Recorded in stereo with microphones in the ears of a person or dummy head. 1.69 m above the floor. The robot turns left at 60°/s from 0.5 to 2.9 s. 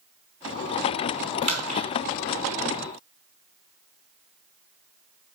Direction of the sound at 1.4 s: 30° right (ahead or behind).